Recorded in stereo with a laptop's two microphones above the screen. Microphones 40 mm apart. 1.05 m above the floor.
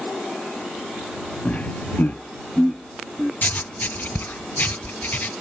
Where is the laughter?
25° left (ahead or behind); by 3.3 s 10° left (ahead or behind).